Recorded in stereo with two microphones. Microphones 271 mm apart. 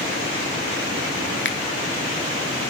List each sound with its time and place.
1.4 s a finger snap: 45° left (ahead or behind), 0.5 m